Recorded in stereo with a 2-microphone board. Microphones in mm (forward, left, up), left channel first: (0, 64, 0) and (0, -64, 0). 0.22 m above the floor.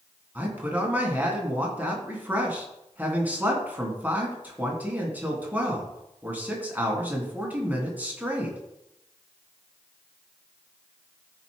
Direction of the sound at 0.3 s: 10° right (ahead or behind).